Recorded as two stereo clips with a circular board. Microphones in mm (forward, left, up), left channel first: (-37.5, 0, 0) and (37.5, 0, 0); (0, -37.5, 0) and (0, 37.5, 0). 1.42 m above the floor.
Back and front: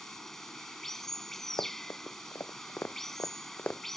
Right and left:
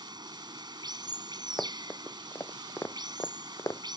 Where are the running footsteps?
160° right; by 3.8 s 115° right.